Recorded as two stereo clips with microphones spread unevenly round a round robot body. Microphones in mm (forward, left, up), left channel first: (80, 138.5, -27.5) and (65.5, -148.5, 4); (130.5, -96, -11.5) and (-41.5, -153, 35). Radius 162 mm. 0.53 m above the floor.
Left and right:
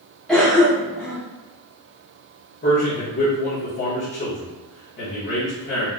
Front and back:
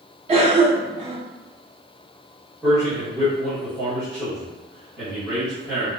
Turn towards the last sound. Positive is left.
turn(degrees=80)